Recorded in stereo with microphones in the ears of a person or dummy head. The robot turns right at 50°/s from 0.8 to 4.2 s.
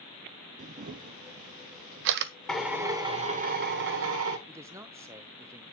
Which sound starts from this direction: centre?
A man speaking, at 4.5 s.